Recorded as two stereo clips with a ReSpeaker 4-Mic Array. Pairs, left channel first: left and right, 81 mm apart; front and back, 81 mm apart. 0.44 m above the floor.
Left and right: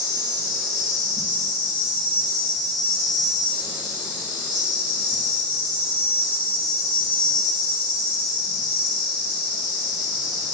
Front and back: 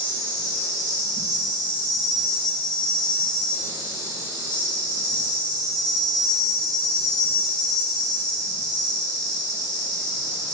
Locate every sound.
0.0 s an insect: 165° right, 1.8 m